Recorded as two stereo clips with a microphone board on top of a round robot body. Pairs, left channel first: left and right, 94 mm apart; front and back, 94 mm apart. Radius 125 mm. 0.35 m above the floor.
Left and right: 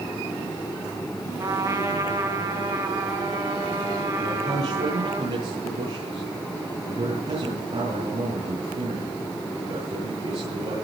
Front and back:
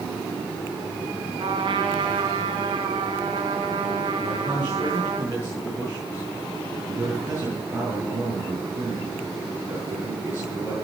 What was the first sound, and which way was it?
A trumpet, 145° right.